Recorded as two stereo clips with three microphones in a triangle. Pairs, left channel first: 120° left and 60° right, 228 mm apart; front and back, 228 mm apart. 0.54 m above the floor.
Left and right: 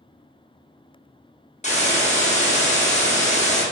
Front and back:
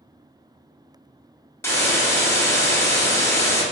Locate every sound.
1.6 s a hiss: 75° left, 0.8 m